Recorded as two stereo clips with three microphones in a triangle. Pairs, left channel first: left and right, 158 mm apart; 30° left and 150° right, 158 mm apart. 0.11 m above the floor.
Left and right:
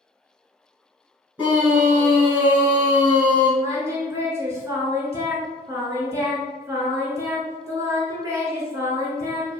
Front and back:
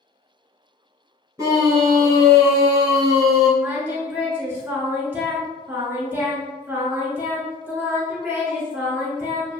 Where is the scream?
155° right, 1.1 m.